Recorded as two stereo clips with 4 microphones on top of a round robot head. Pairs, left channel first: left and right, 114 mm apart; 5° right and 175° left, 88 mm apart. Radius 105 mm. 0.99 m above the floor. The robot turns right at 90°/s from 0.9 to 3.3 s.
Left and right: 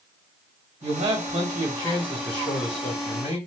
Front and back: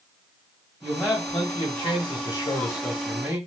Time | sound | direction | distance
0.8 | a man speaking | 95° right | 1.6 m